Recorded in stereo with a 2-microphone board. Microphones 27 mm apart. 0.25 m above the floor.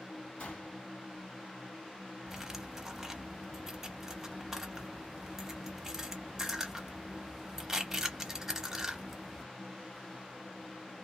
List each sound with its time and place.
0.4 s a gunshot: 55° left (ahead or behind), 2 m
2.3 s cutlery clinking: 20° right (ahead or behind), 0.7 m